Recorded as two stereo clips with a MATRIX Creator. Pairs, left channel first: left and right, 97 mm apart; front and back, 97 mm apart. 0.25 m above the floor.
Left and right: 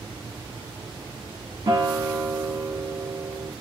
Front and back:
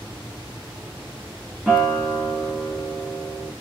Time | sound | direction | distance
1.7 | a guitar | 95° right | 1.3 m